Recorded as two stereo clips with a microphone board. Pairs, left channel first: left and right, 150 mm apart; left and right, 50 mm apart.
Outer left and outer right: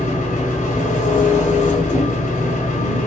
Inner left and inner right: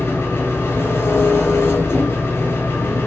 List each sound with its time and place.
0.0 s an engine running: 55° left (ahead or behind), 0.9 m